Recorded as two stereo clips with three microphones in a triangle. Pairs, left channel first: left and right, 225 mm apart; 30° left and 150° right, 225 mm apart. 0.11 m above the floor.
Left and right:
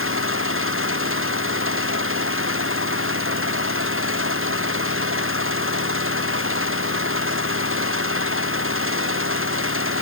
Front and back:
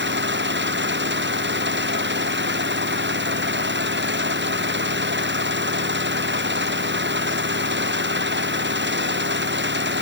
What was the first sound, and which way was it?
An engine running, 115° right.